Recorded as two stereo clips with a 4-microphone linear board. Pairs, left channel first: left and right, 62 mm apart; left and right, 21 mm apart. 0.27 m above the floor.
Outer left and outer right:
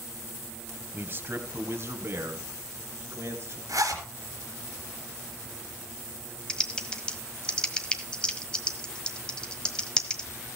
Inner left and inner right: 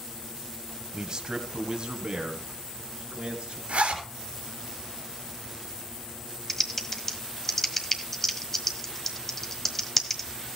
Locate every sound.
0.9 s a man speaking: 30° right (ahead or behind), 1.3 m; by 3.6 s 40° right (ahead or behind), 3.5 m
3.7 s a zipper: 65° right (ahead or behind), 4 m
6.5 s typing on a keyboard: 15° left (ahead or behind), 1.4 m